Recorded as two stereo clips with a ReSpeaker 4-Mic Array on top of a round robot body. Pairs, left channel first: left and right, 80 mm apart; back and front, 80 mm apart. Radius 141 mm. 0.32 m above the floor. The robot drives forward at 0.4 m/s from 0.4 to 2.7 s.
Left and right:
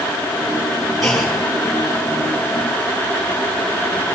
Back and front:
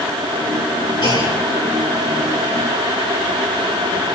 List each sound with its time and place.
1.0 s a clunk: straight behind, 4.5 m